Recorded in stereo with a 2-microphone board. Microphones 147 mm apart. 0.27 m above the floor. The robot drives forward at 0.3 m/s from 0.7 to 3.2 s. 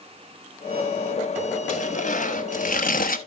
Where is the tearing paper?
55° left (ahead or behind), 1.2 m; by 3.2 s 75° left (ahead or behind), 1.0 m.